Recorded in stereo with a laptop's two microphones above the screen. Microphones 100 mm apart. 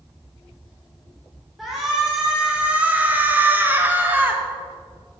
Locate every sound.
1.6 s a shout: centre (ahead or behind), 1.3 m; by 4.4 s 20° right (ahead or behind), 1.5 m